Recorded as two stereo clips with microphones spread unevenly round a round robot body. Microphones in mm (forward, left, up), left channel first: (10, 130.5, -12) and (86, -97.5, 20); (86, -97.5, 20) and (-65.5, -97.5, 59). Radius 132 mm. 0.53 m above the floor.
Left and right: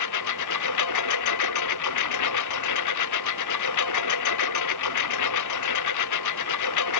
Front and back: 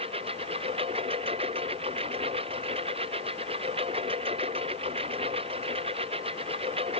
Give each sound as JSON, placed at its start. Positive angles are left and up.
{"t": 0.0, "sound": "a lawn mower", "azimuth_deg": 110}